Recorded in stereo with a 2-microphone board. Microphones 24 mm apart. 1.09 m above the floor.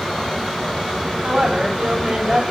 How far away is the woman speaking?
About 3 m.